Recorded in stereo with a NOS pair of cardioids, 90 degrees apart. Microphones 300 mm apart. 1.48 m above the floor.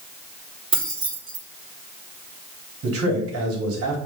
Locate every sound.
0.7 s keys jangling: 20° right, 3.5 m
2.8 s a man speaking: 55° right, 3.5 m